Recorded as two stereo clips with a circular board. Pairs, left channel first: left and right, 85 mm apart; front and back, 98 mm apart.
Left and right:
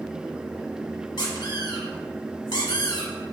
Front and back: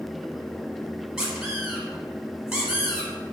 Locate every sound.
1.2 s a squeak: 95° left, 0.8 m